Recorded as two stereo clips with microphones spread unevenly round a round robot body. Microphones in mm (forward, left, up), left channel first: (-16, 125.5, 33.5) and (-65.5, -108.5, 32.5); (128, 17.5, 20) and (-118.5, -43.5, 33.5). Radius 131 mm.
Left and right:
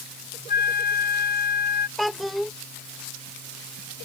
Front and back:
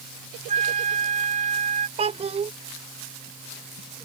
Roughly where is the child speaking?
Behind.